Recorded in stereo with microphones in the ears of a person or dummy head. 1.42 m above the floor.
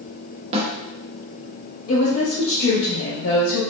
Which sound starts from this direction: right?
A snare drum, at 0.5 s.